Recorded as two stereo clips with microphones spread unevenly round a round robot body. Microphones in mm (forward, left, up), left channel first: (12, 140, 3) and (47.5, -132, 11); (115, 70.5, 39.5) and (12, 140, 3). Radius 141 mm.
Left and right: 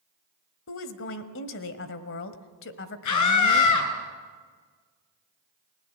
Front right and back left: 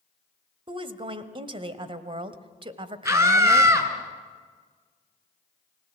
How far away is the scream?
About 5.5 m.